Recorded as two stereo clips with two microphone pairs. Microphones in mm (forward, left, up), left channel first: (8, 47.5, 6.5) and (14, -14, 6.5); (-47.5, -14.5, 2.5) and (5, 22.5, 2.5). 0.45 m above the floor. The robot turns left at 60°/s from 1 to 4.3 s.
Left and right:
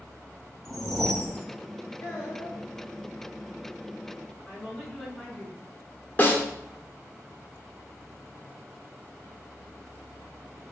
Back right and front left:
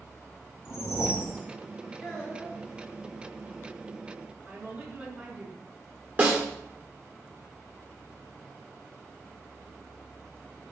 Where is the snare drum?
65° left, 0.9 m.